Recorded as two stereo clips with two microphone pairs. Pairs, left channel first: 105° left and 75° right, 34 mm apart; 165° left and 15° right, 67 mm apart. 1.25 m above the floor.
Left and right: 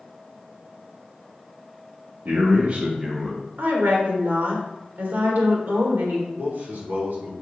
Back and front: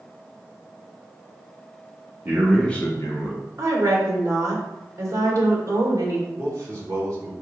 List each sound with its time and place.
2.2 s a man speaking: 80° right, 1.0 m; by 3.4 s 175° right, 1.5 m
3.6 s a woman speaking: 60° right, 1.5 m
6.4 s a man speaking: 55° right, 2.5 m